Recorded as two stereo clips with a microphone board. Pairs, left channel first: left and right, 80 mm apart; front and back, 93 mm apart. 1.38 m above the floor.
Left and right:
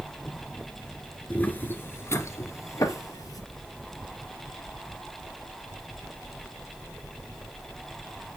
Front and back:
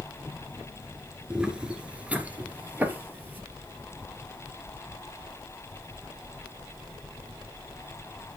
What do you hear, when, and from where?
1.3 s footsteps: 115° left, 1.4 m